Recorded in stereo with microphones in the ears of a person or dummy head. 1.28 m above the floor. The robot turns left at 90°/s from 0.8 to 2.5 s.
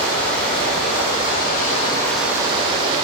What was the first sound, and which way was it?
Running water, 125° left.